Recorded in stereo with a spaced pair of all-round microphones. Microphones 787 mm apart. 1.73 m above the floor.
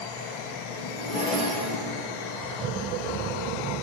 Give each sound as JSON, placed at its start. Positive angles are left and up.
{"t": 0.7, "sound": "a zipper", "side_deg": 45, "distance_m": 5.5}